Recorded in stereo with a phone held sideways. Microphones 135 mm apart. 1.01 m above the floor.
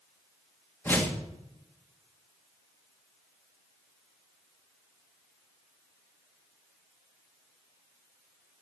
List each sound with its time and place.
0.8 s a whoosh: 15° left (ahead or behind), 2 m